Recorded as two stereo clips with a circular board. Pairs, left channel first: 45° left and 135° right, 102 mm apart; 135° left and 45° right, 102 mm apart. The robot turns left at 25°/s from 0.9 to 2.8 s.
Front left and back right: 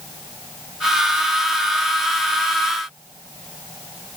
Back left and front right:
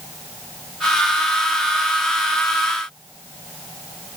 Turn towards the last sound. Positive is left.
No sound to turn to.